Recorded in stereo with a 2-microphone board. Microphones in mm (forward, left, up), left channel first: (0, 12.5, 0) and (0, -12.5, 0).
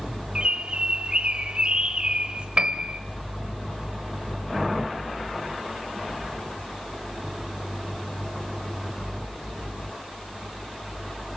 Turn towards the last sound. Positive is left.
turn(degrees=-45)  # may be behind; listen again after turning